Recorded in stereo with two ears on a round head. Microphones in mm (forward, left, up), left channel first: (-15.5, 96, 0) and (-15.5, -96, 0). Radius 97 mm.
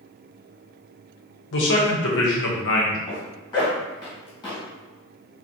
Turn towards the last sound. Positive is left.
turn(degrees=20)  # may be behind; listen again after turning